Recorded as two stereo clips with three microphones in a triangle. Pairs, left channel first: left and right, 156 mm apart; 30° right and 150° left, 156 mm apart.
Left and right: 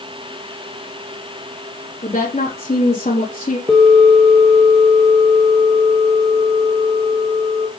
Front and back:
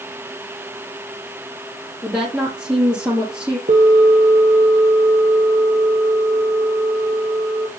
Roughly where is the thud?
I don't hear a thud.